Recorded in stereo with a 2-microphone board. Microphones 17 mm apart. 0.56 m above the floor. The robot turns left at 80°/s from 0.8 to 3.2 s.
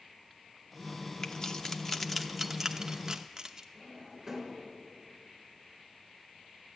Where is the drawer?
20° right (ahead or behind), 4 m.